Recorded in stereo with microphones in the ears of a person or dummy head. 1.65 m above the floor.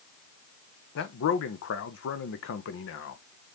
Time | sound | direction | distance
0.9 | a man speaking | 65° left (ahead or behind) | 1.1 m